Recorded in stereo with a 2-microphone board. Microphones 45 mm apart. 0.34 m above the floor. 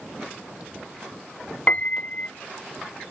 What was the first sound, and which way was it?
A piano, 35° left (ahead or behind).